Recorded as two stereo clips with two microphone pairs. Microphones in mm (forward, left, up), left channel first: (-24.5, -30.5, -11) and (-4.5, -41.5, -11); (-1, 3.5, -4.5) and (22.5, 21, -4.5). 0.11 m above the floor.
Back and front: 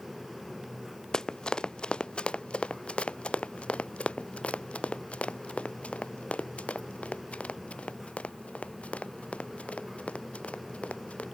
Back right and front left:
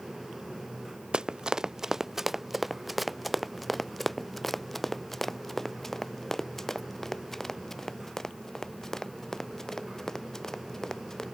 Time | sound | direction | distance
1.1 | running footsteps | 95° left | ?